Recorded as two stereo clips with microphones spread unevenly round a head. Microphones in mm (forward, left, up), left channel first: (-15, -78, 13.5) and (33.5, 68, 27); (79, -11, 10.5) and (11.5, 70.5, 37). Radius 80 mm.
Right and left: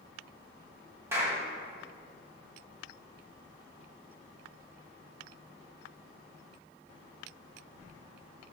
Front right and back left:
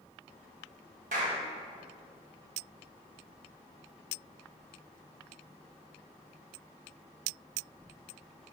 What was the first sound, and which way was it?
A clap, 145° left.